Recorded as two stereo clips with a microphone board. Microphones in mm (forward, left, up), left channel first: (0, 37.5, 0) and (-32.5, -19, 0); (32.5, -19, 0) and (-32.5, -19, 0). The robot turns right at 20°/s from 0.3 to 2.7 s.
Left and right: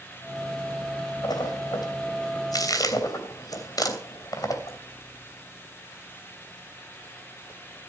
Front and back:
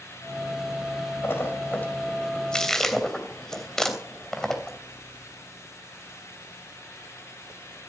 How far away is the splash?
About 3 m.